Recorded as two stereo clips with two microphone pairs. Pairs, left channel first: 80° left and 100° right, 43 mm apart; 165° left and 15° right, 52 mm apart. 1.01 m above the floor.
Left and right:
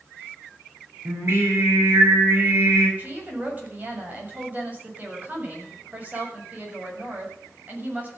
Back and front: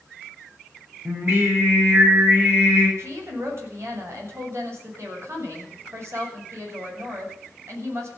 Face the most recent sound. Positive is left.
turn(degrees=-45)